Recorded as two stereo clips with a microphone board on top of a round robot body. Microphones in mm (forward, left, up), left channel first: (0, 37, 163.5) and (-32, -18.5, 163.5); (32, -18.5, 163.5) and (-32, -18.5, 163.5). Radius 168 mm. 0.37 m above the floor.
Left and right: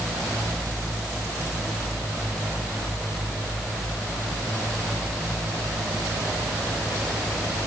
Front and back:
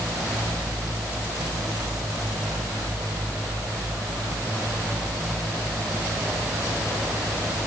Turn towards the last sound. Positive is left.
No sound to turn to.